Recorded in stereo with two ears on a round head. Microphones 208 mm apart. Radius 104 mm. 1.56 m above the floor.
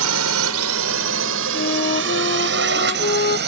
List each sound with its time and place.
0.0 s a drone: 75° right (ahead or behind); by 3.5 s 45° right (ahead or behind)
1.5 s a flute: 40° left (ahead or behind)